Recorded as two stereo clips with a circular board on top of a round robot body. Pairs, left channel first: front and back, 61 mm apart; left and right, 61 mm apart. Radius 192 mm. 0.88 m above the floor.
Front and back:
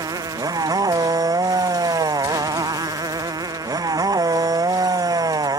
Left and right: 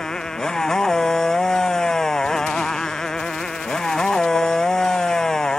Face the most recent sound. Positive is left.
turn(degrees=170)